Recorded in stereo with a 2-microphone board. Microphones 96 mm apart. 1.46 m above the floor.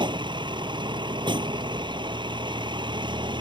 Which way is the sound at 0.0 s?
55° right (ahead or behind).